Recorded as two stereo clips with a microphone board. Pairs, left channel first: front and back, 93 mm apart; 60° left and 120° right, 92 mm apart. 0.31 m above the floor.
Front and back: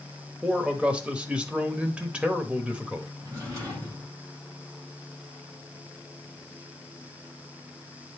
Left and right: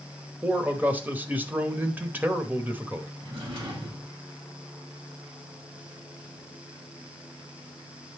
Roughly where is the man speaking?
Behind right.